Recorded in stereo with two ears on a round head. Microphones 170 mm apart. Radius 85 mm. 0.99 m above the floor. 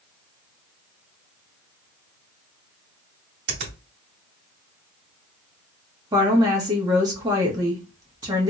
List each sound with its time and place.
3.5 s a finger snap: 60° right (ahead or behind), 1.9 m
6.1 s a woman speaking: 20° right (ahead or behind), 1.2 m